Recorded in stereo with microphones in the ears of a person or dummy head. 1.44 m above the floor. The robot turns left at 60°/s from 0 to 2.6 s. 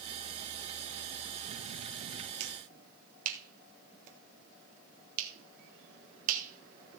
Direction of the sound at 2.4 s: 35° right (ahead or behind).